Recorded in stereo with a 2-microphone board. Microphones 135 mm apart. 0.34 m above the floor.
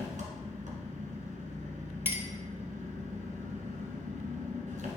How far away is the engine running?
About 1.7 m.